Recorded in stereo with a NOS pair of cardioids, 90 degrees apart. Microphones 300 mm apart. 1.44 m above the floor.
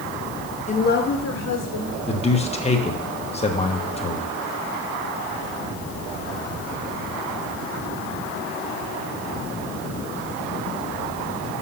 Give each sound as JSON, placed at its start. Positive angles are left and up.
{"t": 0.7, "sound": "a woman speaking", "azimuth_deg": 20, "distance_m": 1.1}
{"t": 2.1, "sound": "a man speaking", "azimuth_deg": 20, "distance_m": 1.3}